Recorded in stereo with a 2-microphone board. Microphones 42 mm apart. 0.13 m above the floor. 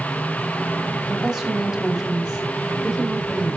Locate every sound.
1.1 s a woman speaking: centre (ahead or behind), 6.5 m